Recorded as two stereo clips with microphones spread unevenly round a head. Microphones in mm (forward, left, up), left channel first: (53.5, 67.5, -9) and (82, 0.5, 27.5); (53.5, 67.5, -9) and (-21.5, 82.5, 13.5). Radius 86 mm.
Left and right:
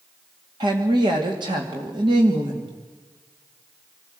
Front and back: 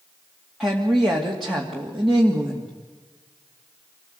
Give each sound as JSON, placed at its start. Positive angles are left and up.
{"t": 0.6, "sound": "a woman speaking", "azimuth_deg": -105, "distance_m": 2.5}